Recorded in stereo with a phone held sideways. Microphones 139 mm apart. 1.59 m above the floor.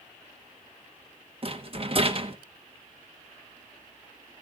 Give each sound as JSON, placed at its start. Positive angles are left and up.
{"t": 1.4, "sound": "a rattle", "side_deg": -40, "distance_m": 1.0}